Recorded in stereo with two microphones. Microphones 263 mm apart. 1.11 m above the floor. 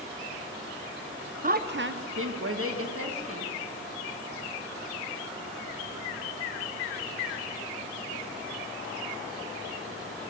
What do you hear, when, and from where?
1.4 s a woman speaking: 30° right (ahead or behind), 0.6 m; by 3.5 s 60° right (ahead or behind), 2 m